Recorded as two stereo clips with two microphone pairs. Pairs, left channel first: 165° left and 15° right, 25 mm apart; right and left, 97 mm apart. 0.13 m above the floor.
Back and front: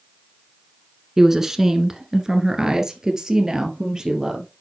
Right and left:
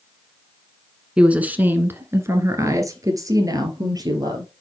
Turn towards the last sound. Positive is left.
turn(degrees=45)